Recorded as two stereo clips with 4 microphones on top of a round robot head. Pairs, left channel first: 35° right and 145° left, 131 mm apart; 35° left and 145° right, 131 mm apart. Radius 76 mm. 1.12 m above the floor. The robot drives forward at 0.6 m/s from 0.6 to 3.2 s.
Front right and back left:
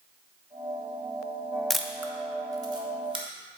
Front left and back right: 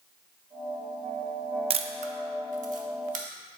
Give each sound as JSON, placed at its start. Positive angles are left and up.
{"t": 1.7, "sound": "a camera shutter", "azimuth_deg": -120, "distance_m": 0.5}